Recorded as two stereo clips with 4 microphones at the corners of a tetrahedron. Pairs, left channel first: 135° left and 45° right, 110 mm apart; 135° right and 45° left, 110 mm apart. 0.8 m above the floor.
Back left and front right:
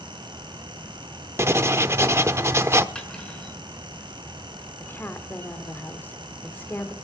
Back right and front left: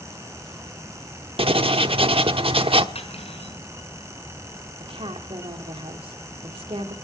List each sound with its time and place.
1.4 s writing: 20° left, 0.9 m
3.0 s cutlery clinking: 145° right, 6 m
4.8 s a woman speaking: 65° left, 2.5 m